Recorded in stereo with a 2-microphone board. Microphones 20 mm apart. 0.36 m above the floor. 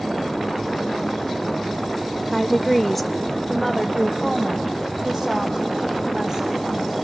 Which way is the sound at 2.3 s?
5° left (ahead or behind).